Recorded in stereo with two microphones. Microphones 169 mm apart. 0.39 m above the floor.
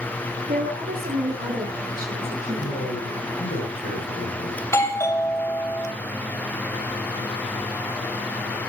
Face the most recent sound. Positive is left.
turn(degrees=15)  # may be behind; listen again after turning